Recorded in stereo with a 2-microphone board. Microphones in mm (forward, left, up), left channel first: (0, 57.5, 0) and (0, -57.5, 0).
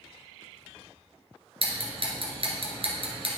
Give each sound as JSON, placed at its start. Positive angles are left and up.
{"t": 1.6, "sound": "ticking", "side_deg": -55, "distance_m": 1.6}